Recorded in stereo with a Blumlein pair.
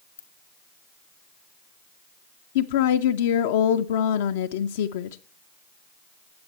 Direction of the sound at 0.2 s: 65° left.